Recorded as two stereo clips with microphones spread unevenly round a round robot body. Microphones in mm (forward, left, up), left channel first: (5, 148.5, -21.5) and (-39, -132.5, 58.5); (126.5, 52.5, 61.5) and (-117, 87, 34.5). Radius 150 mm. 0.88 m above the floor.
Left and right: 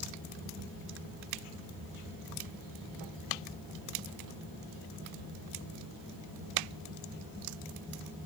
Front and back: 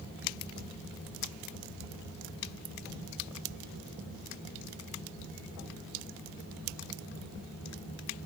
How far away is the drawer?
I don't hear a drawer.